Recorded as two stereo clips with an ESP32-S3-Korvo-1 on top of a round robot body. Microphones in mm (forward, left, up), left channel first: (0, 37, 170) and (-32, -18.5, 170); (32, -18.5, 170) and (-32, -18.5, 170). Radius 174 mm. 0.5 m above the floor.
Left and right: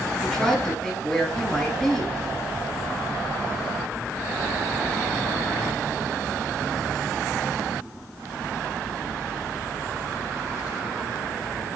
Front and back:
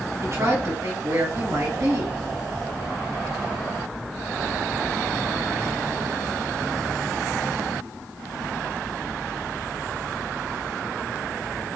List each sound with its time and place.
0.2 s a woman speaking: 145° left, 2.5 m